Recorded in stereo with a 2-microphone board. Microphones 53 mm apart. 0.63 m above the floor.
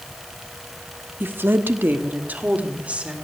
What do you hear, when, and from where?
1.2 s a woman speaking: 40° right (ahead or behind), 1.0 m; by 3.1 s 25° right (ahead or behind), 2.0 m